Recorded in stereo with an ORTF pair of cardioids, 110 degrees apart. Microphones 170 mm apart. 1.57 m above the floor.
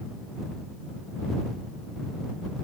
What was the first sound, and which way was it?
Only background noise.